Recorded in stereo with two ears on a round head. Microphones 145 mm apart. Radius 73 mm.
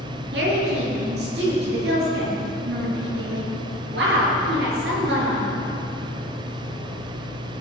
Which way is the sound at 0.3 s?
70° right (ahead or behind).